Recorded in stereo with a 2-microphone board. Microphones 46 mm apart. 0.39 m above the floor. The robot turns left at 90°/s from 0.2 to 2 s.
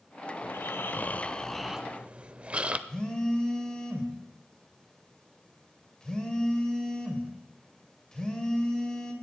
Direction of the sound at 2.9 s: 20° left (ahead or behind).